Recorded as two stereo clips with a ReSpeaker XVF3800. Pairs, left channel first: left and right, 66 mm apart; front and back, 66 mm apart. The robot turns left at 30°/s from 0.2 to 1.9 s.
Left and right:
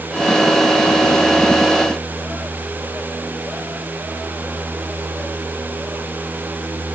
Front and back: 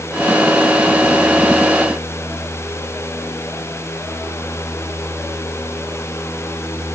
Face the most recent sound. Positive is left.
No sound to turn to.